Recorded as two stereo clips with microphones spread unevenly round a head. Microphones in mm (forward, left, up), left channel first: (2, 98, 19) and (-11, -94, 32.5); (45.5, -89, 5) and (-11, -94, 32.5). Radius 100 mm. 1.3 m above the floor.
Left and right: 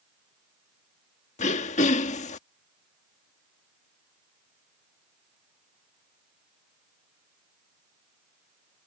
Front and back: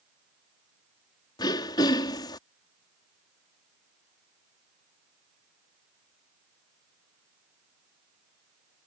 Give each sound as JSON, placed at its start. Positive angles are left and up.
{"t": 1.4, "sound": "throat clearing", "azimuth_deg": 30}